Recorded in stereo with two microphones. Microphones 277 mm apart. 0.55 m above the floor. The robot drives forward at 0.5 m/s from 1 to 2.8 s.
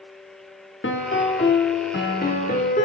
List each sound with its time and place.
0.8 s a piano: 45° left (ahead or behind), 0.8 m; by 2.9 s 30° left (ahead or behind), 1.2 m